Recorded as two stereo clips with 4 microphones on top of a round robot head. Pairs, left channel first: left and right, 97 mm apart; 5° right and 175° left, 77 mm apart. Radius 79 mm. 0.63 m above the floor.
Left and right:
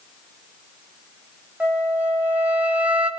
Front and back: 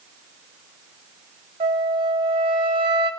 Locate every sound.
1.6 s a flute: 165° right, 1.8 m